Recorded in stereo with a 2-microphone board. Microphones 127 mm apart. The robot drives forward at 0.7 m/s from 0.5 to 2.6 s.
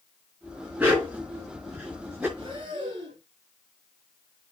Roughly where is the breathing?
Right.